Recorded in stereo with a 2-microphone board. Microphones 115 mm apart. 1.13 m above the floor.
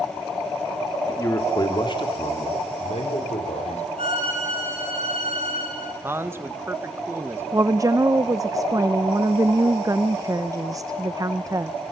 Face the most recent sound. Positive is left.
turn(degrees=-30)  # may be behind; listen again after turning